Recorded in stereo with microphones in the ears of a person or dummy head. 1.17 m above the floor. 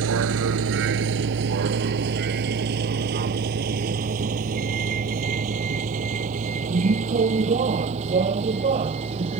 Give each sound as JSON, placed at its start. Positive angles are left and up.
{"t": 0.0, "sound": "a vehicle", "side_deg": -75}